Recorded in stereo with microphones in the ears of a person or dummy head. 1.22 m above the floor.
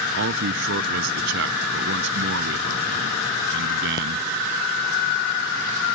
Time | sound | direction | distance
0.1 | a man speaking | 65° right (ahead or behind) | ?